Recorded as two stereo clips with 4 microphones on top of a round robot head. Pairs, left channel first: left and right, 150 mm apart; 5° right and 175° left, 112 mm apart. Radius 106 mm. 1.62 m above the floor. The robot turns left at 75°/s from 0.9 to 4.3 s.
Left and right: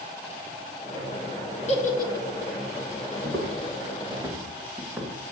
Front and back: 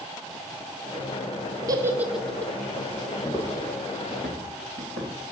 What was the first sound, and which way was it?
A giggle, 125° left.